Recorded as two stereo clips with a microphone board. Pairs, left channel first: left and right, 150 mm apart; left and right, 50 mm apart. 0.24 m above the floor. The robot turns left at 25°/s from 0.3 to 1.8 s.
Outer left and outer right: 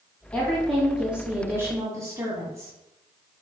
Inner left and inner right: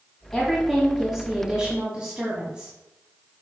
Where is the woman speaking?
10° left, 1.8 m; by 2.7 s 25° right, 1.8 m.